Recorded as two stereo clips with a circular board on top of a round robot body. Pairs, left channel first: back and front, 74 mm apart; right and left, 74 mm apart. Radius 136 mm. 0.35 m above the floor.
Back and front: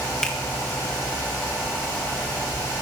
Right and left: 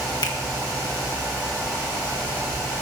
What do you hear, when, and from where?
0.2 s a finger snap: 100° right, 1.9 m